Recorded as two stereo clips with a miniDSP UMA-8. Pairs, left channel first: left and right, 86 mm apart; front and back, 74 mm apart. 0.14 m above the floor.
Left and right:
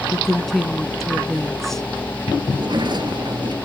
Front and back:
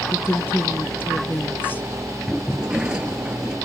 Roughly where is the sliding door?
Right.